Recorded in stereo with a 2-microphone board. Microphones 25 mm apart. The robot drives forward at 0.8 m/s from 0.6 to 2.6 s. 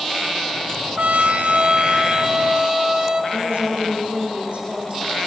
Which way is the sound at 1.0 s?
75° right (ahead or behind).